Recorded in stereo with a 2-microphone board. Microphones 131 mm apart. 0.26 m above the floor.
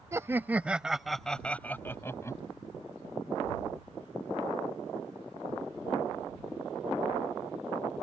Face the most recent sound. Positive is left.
turn(degrees=25)  # may be behind; listen again after turning